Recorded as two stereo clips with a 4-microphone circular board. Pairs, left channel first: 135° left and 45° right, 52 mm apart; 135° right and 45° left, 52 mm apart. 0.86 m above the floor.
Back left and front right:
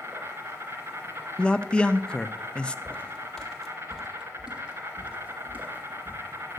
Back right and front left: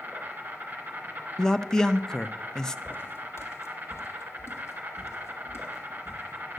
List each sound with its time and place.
0.0 s an insect: 10° right, 3 m
1.4 s a man speaking: 170° left, 0.5 m
2.9 s footsteps: 165° right, 1.3 m; by 6.6 s 100° right, 3 m